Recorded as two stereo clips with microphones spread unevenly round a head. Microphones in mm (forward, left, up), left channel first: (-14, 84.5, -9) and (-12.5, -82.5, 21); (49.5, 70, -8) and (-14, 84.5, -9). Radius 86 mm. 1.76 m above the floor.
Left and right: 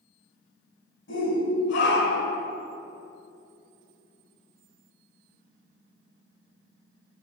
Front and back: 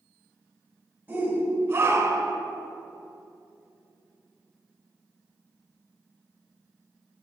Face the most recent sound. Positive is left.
turn(degrees=145)